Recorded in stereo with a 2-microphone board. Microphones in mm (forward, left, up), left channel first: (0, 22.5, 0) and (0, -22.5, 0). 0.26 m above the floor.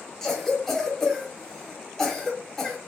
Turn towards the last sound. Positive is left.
turn(degrees=10)  # may be behind; listen again after turning